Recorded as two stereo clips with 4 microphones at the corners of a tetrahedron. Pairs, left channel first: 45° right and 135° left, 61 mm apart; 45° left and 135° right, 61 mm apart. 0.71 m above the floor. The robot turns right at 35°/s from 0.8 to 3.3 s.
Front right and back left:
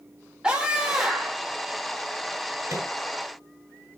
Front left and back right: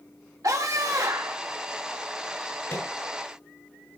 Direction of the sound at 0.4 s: 150° right.